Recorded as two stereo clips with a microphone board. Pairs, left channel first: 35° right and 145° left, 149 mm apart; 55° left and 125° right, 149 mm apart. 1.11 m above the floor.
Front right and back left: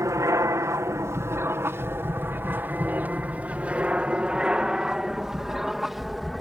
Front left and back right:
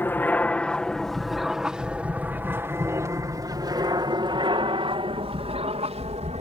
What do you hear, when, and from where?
0.0 s an aircraft: 110° left; by 6.4 s 125° right